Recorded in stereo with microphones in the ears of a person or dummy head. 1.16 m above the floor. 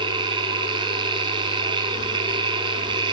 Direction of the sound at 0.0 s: 25° right (ahead or behind).